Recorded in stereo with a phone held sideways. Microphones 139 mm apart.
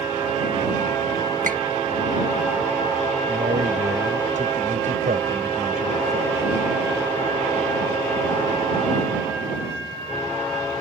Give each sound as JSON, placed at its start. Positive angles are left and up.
{"t": 1.4, "sound": "a squeak", "side_deg": -75}
{"t": 3.3, "sound": "a man speaking", "side_deg": -65}